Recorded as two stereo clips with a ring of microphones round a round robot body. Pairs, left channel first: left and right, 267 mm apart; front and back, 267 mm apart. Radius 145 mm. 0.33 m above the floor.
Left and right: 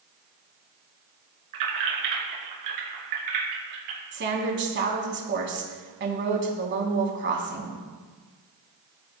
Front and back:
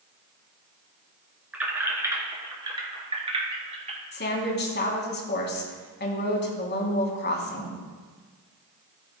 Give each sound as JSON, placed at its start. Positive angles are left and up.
{"t": 1.5, "sound": "keys jangling", "azimuth_deg": -95, "distance_m": 2.5}
{"t": 4.1, "sound": "a woman speaking", "azimuth_deg": -45, "distance_m": 3.0}